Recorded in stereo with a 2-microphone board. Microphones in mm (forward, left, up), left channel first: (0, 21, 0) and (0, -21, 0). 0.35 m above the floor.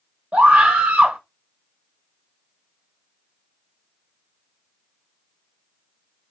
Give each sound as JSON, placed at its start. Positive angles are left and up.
{"t": 0.3, "sound": "a scream", "side_deg": -30, "distance_m": 1.0}